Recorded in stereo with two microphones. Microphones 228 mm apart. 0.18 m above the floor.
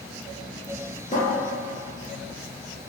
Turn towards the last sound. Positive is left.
turn(degrees=30)  # may be behind; listen again after turning